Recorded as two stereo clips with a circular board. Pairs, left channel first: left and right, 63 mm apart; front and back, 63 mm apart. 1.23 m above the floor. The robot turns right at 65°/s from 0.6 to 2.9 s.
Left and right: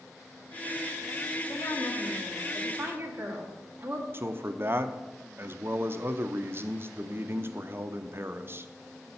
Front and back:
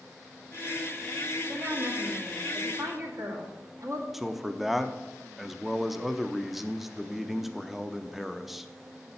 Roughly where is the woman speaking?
Behind left.